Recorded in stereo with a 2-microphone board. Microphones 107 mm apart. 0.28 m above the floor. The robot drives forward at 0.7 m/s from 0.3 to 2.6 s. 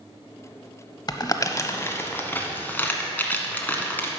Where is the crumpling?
40° left (ahead or behind), 0.6 m; by 4.1 s 15° left (ahead or behind), 1.4 m.